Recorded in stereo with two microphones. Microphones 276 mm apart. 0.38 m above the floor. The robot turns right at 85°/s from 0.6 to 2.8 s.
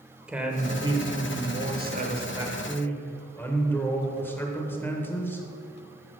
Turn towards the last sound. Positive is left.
turn(degrees=15)